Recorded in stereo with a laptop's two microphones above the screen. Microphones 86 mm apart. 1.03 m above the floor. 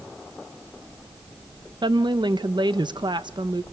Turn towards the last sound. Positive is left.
turn(degrees=-60)  # may be behind; listen again after turning